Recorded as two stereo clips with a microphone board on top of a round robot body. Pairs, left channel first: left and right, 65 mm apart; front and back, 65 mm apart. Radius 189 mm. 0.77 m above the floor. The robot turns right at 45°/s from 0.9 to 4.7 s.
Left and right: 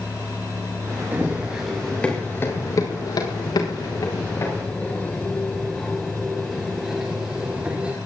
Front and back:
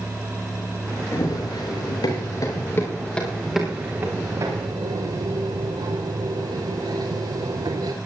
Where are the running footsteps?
30° right, 7.5 m; by 8.0 s 165° right, 5 m.